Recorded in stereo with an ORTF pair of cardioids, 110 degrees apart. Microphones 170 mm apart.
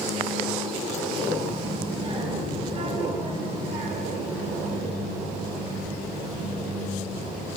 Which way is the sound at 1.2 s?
25° right.